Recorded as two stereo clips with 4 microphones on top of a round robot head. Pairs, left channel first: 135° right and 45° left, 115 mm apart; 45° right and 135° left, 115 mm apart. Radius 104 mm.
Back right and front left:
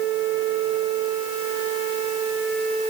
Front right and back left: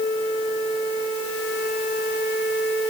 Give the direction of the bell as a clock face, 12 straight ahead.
No bell in this recording.